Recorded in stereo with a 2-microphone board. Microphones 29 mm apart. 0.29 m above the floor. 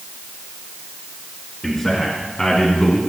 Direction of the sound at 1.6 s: 25° left (ahead or behind).